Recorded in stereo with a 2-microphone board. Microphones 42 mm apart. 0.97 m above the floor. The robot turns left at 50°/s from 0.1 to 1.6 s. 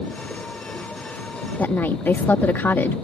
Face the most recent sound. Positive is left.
turn(degrees=55)  # may be behind; listen again after turning